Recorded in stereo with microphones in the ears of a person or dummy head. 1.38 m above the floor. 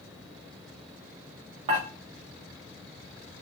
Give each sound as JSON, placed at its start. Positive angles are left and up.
{"t": 1.7, "sound": "dishes clattering", "side_deg": -35, "distance_m": 1.1}